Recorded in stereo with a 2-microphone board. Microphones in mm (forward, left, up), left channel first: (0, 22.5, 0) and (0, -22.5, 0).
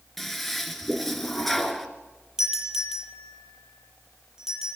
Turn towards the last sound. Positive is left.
turn(degrees=-15)  # may be behind; listen again after turning